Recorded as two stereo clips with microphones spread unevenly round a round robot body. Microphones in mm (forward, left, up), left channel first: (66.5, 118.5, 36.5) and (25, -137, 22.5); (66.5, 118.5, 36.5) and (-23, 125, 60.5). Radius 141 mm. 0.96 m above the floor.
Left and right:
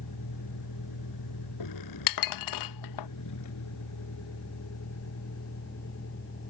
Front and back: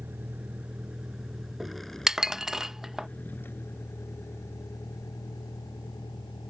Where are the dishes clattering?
90° left.